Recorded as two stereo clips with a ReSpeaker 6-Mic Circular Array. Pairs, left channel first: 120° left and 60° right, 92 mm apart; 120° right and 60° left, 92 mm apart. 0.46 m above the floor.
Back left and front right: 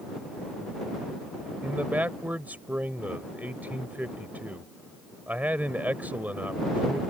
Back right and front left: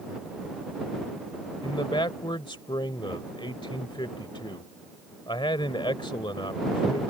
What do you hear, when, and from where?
1.6 s a man speaking: 130° right